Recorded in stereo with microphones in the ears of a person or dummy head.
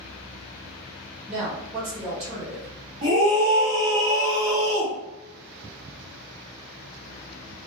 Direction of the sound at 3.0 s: 45° right (ahead or behind).